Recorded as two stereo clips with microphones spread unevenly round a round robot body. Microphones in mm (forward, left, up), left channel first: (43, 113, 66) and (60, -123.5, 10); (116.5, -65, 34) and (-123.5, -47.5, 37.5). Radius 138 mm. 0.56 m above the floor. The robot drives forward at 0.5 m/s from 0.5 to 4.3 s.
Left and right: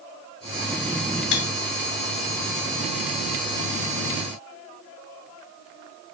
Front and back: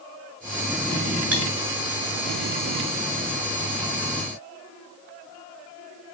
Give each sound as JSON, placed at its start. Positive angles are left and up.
{"t": 1.3, "sound": "cutlery clinking", "azimuth_deg": 90, "distance_m": 2.0}